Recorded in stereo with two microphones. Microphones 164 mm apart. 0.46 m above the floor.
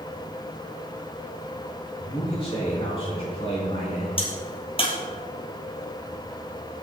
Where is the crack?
35° left (ahead or behind), 3 m.